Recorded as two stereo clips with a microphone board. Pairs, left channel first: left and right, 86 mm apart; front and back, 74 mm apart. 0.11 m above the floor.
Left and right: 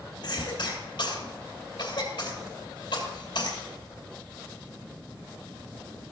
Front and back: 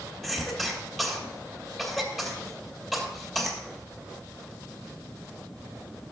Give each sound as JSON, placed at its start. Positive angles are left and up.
{"t": 0.2, "sound": "a cough", "azimuth_deg": 90, "distance_m": 3.0}